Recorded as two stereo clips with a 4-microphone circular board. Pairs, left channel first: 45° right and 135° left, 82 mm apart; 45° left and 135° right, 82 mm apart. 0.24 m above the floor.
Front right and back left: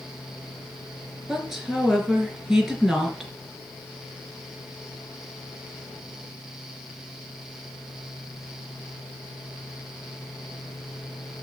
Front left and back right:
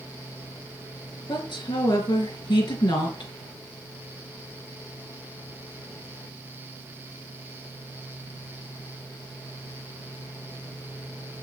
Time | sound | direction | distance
1.3 | a woman speaking | 50° left | 3.5 m